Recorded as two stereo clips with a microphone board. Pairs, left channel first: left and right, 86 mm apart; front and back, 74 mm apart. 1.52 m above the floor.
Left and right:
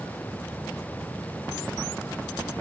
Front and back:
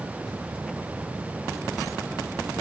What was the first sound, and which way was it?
Only background noise.